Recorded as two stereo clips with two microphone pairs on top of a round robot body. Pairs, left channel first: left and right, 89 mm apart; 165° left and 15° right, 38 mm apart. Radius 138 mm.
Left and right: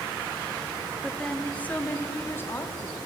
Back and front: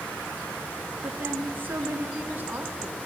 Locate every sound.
1.0 s a woman speaking: 10° left, 2 m; by 3.1 s 35° left, 3.5 m